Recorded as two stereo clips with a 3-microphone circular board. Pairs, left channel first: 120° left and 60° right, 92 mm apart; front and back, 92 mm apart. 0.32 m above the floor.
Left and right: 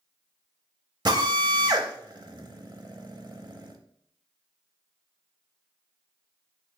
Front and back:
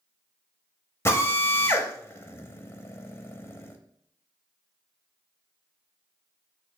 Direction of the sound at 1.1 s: 50° right.